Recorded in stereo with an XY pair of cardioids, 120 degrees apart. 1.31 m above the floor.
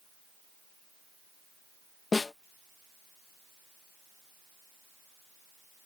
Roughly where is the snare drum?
Ahead.